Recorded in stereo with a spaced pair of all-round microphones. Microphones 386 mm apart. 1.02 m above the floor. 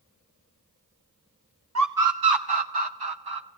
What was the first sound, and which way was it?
A scream, 45° right (ahead or behind).